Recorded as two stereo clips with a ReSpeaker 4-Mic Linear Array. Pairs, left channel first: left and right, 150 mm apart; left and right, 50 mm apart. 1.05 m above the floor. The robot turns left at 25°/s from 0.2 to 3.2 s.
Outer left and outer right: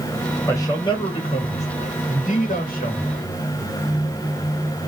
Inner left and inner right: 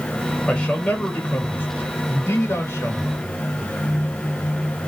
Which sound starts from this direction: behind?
A man speaking, at 0.5 s.